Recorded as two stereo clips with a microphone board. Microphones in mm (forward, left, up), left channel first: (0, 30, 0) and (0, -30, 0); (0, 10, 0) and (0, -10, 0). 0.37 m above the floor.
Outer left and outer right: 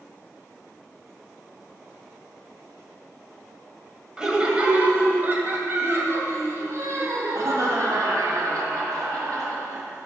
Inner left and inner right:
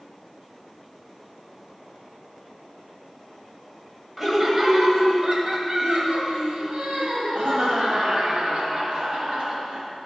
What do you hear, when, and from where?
4.2 s laughter: 10° right (ahead or behind), 2.0 m; by 9.8 s 75° right (ahead or behind), 4.5 m